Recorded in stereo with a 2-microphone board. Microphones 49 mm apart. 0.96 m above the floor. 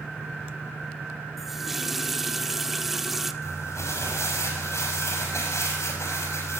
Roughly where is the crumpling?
Left.